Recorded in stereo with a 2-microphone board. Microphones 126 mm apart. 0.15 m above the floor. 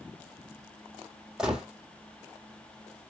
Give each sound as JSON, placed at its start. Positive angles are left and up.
{"t": 1.4, "sound": "a gunshot", "side_deg": -5, "distance_m": 2.0}